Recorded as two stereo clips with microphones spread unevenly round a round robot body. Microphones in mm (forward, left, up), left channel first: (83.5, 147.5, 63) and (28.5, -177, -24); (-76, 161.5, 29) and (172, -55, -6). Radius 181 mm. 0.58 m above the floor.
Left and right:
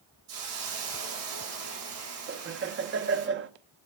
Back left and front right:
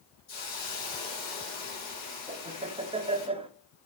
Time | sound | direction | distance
0.3 | a hiss | 155° right | 4 m
2.3 | laughter | 105° right | 0.8 m